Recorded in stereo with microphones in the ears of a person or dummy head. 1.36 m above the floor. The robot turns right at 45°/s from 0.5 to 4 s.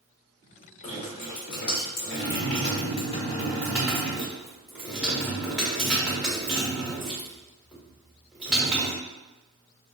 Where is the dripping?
40° left, 1.4 m; by 9.0 s 175° right, 1.4 m.